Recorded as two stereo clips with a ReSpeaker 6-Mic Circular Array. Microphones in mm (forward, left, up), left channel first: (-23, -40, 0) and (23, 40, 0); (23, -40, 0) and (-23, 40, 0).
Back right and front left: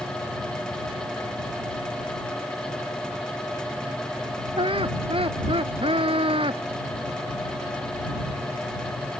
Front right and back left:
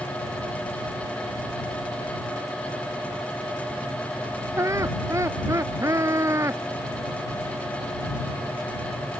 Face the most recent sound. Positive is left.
turn(degrees=65)